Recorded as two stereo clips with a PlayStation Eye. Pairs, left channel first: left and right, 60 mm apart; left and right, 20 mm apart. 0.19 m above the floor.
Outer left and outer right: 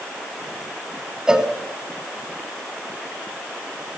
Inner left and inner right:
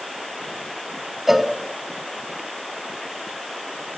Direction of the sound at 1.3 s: 10° right (ahead or behind).